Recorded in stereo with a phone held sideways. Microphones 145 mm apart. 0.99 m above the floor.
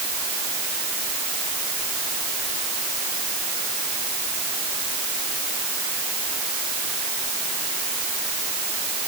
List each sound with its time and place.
Only background noise.